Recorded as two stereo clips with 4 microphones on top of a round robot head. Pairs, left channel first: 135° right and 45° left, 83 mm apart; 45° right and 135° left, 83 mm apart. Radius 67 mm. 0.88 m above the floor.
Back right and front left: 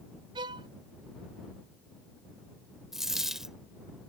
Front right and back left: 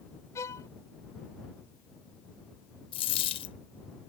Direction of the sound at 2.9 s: 40° right.